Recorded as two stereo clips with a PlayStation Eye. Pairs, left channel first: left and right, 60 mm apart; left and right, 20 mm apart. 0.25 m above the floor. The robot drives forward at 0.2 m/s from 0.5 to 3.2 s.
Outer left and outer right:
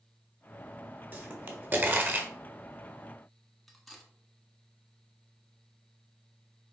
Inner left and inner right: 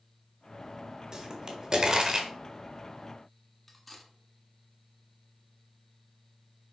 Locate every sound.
1.1 s a pop: 35° right (ahead or behind), 1.4 m
3.7 s cutlery clinking: centre (ahead or behind), 1.2 m